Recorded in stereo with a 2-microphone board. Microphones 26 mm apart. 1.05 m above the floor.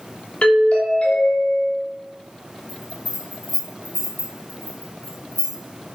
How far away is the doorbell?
About 3 m.